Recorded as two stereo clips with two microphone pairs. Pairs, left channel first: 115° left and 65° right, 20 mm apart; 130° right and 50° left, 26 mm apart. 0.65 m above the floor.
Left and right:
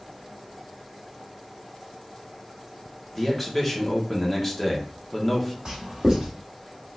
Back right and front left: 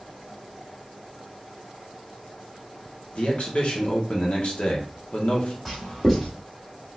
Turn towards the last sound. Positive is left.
turn(degrees=-50)